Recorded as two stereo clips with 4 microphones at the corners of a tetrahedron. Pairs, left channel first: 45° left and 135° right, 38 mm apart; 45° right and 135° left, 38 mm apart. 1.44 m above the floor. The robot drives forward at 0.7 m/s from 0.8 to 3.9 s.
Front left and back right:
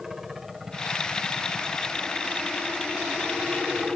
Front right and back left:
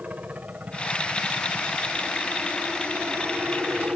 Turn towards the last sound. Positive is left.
turn(degrees=150)